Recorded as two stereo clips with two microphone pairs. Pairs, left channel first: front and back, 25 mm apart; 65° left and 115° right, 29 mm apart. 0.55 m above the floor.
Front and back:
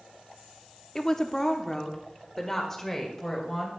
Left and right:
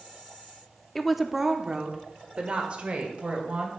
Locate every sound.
0.9 s a woman speaking: straight ahead, 0.7 m; by 3.7 s 75° right, 2.5 m